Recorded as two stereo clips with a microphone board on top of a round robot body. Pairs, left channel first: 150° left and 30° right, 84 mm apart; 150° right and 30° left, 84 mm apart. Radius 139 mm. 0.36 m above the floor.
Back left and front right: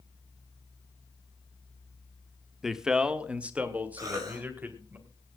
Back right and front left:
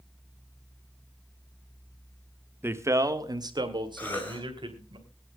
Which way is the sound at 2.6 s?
50° left.